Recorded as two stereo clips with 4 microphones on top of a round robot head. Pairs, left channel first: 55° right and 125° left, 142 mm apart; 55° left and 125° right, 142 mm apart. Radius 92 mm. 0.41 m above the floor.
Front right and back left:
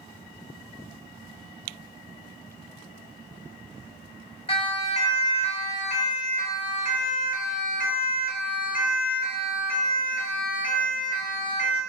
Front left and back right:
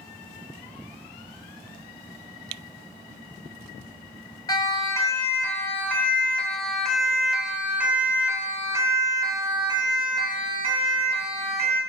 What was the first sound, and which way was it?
A siren, 10° right.